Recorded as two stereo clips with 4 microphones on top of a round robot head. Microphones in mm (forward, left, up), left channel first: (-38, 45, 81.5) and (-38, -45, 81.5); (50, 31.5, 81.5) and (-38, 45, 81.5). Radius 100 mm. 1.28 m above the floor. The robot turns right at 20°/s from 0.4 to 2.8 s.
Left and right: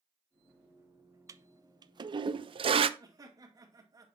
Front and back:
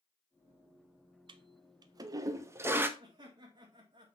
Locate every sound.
1.3 s a toilet flushing: 150° right, 0.5 m; by 2.9 s 120° right, 0.5 m
3.0 s laughter: 140° right, 2 m